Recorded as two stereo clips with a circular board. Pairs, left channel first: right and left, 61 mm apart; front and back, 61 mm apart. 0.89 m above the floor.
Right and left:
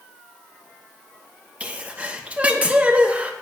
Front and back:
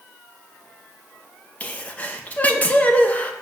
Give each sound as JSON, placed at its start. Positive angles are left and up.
{"t": 1.6, "sound": "a sneeze", "azimuth_deg": 40, "distance_m": 1.1}